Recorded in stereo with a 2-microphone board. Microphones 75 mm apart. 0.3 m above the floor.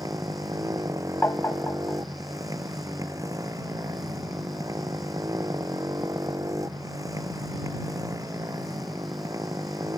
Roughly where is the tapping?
Left.